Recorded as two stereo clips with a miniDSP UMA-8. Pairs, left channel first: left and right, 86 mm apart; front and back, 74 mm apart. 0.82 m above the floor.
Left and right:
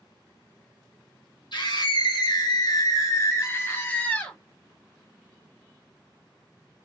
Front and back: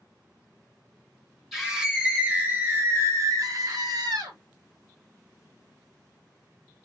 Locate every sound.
1.5 s a scream: 95° left, 1.7 m; by 4.4 s 165° left, 1.6 m